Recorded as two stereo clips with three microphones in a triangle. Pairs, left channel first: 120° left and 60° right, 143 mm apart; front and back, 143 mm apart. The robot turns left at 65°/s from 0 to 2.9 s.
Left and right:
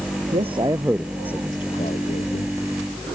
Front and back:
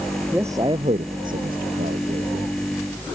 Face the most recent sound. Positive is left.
turn(degrees=90)